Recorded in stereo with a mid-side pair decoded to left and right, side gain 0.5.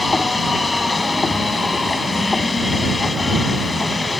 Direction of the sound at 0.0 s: 20° left.